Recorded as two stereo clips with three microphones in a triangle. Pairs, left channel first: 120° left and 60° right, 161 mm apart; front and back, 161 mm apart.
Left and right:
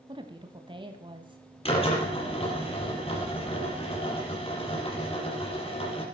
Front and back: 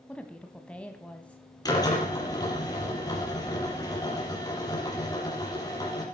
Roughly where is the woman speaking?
Right.